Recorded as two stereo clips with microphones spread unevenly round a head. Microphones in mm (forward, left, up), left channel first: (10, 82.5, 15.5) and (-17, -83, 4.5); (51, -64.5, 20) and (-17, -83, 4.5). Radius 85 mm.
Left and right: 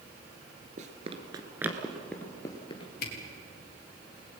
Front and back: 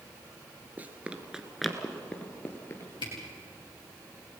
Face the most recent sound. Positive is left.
turn(degrees=45)